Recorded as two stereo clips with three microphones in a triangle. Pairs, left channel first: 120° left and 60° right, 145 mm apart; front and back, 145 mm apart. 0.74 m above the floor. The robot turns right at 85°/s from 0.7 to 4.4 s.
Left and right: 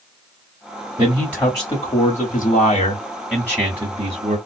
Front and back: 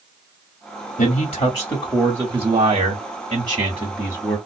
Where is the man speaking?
10° left, 1.7 m; by 4.4 s 65° right, 1.7 m.